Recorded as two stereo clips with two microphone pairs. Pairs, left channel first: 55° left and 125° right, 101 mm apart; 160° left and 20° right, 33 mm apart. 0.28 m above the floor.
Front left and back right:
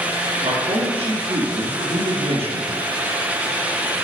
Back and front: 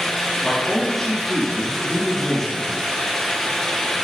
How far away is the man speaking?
About 3 m.